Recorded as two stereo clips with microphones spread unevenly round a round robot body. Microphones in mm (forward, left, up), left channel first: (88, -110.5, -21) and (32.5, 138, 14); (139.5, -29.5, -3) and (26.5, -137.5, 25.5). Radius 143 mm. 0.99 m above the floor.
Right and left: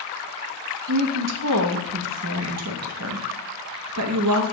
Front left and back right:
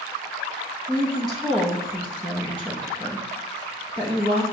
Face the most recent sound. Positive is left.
turn(degrees=145)